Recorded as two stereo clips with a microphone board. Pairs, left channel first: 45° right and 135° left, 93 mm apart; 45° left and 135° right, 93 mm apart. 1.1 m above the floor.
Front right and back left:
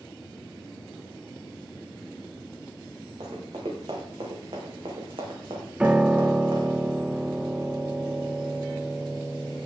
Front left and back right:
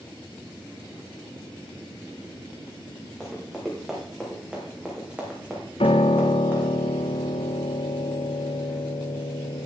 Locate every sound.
3.2 s running footsteps: 135° left, 4.5 m; by 6.7 s 165° left, 3.5 m
5.8 s a piano: 55° left, 0.5 m